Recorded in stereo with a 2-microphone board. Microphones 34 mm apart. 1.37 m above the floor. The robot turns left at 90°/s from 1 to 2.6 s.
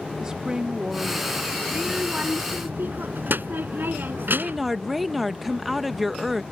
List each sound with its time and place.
0.2 s a woman speaking: 20° right; by 1.5 s 65° right
1.7 s a child speaking: 5° left; by 4.8 s 75° right
4.2 s a woman speaking: 5° right (ahead or behind)